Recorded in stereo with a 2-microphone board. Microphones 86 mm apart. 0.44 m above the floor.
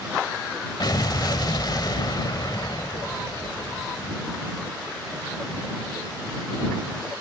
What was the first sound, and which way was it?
An explosion, 55° left (ahead or behind).